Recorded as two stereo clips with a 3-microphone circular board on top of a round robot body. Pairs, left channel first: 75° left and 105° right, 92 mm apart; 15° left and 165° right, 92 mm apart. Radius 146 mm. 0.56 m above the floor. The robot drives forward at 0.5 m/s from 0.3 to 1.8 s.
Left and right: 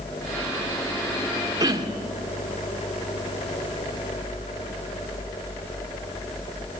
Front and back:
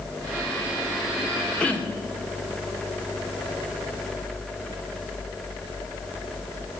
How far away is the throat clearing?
About 2 m.